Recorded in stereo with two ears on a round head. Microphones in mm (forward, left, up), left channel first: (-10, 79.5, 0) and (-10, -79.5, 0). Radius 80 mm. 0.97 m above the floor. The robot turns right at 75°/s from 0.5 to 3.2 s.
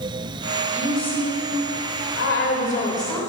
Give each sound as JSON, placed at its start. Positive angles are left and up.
{"t": 0.7, "sound": "a woman speaking", "azimuth_deg": -15, "distance_m": 3.5}